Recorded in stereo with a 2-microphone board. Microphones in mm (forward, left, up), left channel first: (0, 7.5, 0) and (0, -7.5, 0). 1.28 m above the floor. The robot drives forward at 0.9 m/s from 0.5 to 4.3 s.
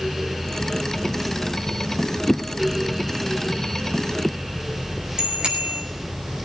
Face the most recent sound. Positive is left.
turn(degrees=-60)  # may be behind; listen again after turning